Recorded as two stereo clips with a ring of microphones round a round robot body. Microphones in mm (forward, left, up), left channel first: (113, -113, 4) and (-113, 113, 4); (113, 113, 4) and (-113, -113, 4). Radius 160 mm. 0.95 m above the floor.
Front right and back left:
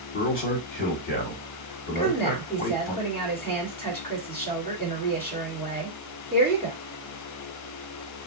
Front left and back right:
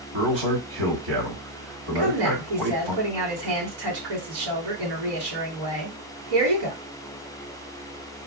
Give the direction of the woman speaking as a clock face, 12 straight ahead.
4 o'clock.